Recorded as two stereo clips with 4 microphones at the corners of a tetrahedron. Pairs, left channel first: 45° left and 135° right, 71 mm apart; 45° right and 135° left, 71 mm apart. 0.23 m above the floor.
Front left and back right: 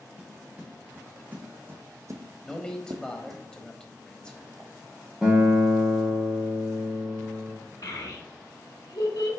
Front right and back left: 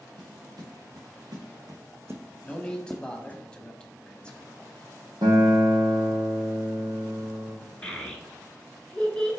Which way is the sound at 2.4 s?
10° right.